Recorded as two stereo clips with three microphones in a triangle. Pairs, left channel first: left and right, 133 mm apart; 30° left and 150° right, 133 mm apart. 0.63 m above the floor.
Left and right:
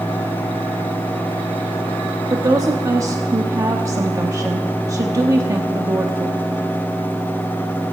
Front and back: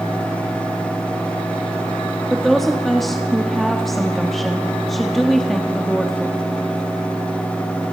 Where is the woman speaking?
60° right, 0.9 m.